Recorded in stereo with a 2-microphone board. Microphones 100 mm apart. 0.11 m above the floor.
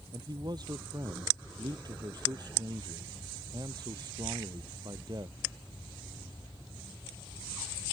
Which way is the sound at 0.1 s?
45° right (ahead or behind).